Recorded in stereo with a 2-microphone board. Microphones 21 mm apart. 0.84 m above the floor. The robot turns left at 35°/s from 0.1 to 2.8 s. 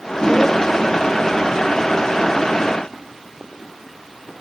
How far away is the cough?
No cough in this recording.